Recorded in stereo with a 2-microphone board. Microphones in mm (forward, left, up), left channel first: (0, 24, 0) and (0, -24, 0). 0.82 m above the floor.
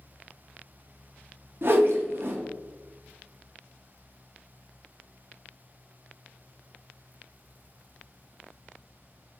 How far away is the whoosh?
About 0.6 m.